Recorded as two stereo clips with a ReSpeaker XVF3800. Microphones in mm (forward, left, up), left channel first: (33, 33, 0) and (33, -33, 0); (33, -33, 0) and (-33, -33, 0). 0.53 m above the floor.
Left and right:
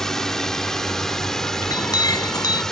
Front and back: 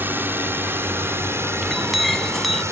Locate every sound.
0.0 s a drone: 165° left; by 2.7 s 170° left
1.6 s a clink: 90° left